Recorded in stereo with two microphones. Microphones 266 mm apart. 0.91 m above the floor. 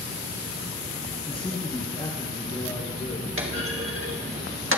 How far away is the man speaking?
About 0.6 m.